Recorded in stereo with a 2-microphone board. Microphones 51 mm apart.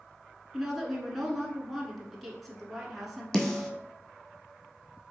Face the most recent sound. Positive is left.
turn(degrees=15)  # may be behind; listen again after turning